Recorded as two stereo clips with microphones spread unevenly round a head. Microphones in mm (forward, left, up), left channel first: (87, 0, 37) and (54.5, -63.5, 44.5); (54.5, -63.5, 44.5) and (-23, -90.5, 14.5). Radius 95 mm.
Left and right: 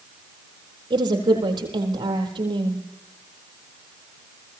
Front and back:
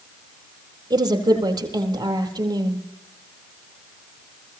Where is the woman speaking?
125° right, 4 m.